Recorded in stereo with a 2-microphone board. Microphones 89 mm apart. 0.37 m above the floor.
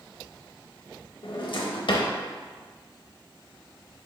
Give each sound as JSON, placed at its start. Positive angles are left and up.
{"t": 1.2, "sound": "a drawer", "side_deg": 70, "distance_m": 0.5}